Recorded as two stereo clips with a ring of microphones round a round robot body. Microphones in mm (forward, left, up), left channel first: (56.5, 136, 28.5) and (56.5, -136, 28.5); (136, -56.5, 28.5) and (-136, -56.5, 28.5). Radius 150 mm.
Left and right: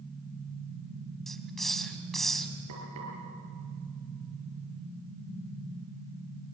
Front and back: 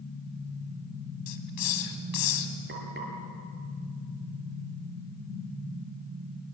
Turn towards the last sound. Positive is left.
turn(degrees=-130)